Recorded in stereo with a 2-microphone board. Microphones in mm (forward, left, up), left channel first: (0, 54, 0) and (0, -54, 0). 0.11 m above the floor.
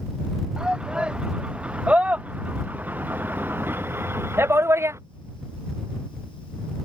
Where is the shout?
5° right (ahead or behind); by 5.0 s 25° right (ahead or behind).